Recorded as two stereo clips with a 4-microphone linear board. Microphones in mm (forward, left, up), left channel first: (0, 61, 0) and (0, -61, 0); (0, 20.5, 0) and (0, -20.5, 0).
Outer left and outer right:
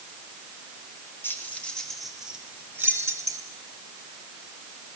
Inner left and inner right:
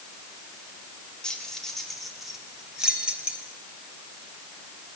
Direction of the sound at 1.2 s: 20° left (ahead or behind).